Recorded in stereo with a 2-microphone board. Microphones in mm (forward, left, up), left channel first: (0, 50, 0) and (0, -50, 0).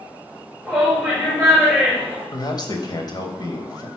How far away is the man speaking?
About 2.5 m.